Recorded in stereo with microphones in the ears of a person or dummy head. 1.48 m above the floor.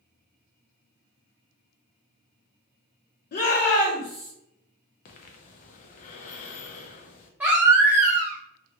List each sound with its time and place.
3.3 s a shout: 50° left (ahead or behind), 0.7 m; by 4.3 s 20° left (ahead or behind), 1.3 m
5.0 s breathing: 45° left (ahead or behind), 0.6 m
7.4 s a baby crying: 10° right (ahead or behind), 0.7 m